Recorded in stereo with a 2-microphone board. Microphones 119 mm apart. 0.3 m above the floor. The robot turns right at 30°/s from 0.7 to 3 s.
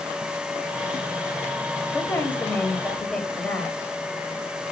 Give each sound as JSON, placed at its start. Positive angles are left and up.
{"t": 1.9, "sound": "a woman speaking", "side_deg": 20, "distance_m": 1.2}